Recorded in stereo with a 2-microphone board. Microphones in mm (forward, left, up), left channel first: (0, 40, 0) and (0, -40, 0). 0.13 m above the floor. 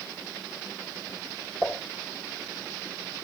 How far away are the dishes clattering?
About 6 m.